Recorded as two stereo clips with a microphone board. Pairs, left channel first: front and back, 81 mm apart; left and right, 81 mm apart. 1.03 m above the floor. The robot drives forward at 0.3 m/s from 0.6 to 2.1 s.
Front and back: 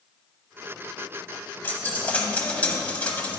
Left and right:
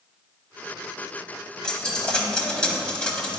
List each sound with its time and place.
1.6 s a dropped coin: 20° left, 0.9 m; by 3.4 s 30° left, 0.9 m